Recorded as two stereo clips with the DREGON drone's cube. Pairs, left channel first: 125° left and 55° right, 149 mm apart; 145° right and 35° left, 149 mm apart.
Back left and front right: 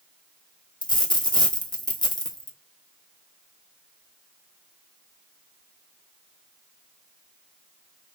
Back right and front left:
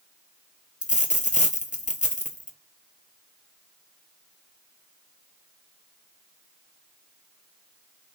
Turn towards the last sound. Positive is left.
turn(degrees=180)